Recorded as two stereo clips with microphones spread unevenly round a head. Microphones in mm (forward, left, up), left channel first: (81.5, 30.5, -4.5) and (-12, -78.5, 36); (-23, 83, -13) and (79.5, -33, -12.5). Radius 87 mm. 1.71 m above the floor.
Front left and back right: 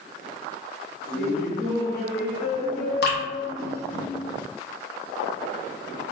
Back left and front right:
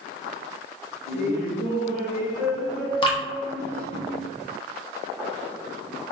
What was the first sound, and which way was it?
Laughter, 165° right.